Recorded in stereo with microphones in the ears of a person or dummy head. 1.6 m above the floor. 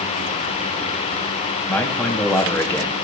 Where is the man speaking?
10° left (ahead or behind), 1.2 m.